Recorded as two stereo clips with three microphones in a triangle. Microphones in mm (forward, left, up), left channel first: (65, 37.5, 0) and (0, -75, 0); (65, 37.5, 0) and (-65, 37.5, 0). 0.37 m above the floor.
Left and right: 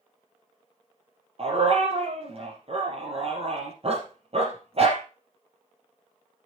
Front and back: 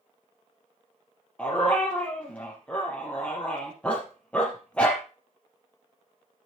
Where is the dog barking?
80° right, 4 m.